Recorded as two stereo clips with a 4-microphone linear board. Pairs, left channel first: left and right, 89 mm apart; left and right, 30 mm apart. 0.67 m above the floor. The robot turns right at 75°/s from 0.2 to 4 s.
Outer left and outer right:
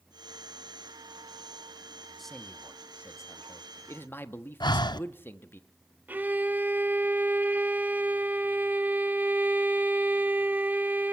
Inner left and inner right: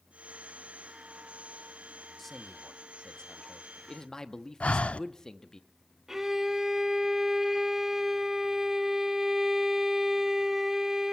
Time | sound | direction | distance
2.2 | a man speaking | centre (ahead or behind) | 0.9 m
4.6 | breathing | 55° left (ahead or behind) | 0.5 m
6.1 | a violin | 20° right (ahead or behind) | 0.8 m